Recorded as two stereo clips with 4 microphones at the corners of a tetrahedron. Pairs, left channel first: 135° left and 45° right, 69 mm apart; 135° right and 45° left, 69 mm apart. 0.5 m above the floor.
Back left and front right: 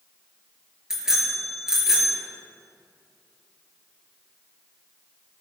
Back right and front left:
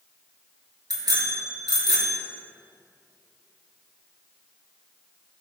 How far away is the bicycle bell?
About 5.5 m.